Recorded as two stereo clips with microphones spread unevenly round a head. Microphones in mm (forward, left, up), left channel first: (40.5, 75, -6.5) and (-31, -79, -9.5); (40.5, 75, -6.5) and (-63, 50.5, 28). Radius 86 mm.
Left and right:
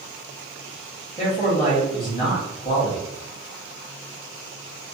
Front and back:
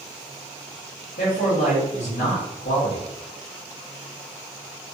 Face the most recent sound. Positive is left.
turn(degrees=0)